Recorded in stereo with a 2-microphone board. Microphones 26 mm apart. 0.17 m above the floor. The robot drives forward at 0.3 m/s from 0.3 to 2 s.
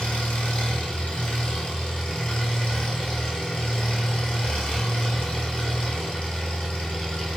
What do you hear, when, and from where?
0.0 s an engine running: 70° left (ahead or behind), 0.8 m; by 7.4 s 50° left (ahead or behind), 1.0 m